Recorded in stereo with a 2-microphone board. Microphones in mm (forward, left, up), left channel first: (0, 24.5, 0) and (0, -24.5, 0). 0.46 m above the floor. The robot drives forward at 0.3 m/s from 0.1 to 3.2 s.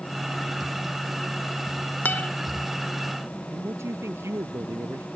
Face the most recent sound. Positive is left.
turn(degrees=-60)  # may be behind; listen again after turning